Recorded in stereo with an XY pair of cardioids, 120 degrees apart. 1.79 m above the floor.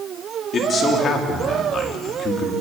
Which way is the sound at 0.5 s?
40° left.